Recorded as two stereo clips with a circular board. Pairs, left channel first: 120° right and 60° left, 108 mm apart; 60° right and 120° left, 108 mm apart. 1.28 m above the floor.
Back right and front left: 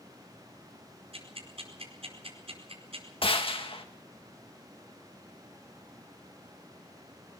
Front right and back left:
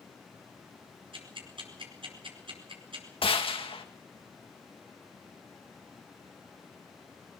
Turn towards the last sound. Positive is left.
turn(degrees=-90)